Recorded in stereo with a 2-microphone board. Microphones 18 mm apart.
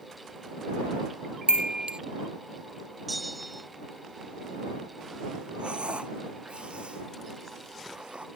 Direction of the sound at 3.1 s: Centre (ahead or behind).